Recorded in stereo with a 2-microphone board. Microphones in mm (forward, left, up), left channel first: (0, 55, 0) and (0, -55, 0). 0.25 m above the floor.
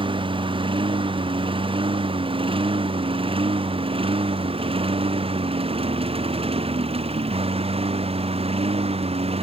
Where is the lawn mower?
50° right (ahead or behind); by 9.4 s 65° right (ahead or behind).